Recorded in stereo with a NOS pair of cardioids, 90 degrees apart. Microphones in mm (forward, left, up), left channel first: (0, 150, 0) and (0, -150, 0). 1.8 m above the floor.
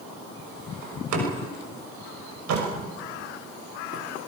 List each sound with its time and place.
0.8 s a door slam: 65° right, 6 m